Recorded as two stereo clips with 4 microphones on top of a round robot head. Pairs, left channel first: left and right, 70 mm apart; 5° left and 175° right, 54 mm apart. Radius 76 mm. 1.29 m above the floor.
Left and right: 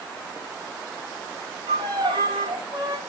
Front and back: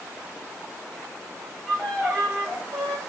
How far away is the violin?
About 3.5 m.